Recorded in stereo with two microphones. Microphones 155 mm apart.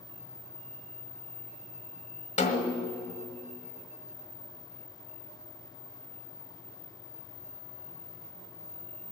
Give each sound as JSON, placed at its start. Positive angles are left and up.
{"t": 2.4, "sound": "a snare drum", "side_deg": 50, "distance_m": 1.4}